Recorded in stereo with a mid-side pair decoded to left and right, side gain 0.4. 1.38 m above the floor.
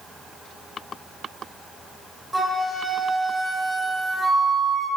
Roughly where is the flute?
Ahead right.